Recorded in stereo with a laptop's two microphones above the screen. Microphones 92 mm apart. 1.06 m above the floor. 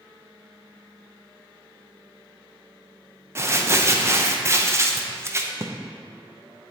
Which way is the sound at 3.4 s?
30° right (ahead or behind).